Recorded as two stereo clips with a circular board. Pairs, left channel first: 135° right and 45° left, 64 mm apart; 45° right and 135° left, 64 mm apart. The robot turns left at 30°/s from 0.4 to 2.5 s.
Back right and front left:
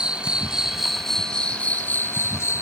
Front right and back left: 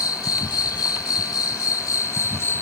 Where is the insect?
30° right; by 2.6 s 95° right.